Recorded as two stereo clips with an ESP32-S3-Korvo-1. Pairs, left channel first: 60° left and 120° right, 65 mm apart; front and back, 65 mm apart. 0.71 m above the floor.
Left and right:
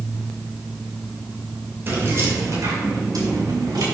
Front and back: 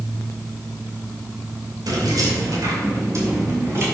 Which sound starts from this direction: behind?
Keys jangling, at 1.9 s.